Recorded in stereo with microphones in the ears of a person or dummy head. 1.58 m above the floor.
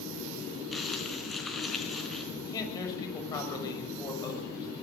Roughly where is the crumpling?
Centre.